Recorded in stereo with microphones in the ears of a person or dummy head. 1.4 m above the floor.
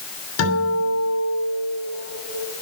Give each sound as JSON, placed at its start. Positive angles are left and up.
{"t": 0.4, "sound": "a guitar", "side_deg": 80, "distance_m": 8.5}